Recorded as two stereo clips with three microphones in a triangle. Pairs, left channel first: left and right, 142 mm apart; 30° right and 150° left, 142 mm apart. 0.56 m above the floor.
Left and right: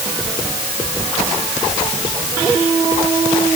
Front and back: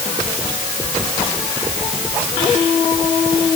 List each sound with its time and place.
Only background noise.